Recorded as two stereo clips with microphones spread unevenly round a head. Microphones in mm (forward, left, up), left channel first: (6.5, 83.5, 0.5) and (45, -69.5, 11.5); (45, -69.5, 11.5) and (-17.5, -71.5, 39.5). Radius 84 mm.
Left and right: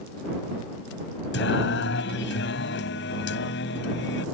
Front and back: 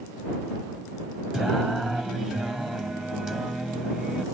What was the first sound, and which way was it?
Singing, 95° left.